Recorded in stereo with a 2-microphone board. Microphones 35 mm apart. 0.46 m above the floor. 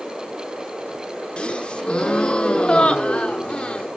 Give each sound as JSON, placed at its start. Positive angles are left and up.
{"t": 1.4, "sound": "a gasp", "side_deg": 30, "distance_m": 0.6}